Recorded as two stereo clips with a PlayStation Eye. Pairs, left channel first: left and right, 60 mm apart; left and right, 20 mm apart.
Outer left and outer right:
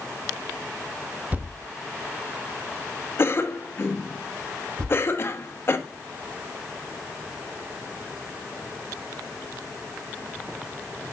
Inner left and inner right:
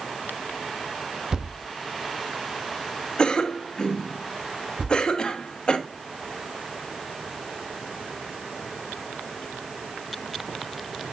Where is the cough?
45° left (ahead or behind), 1.1 m.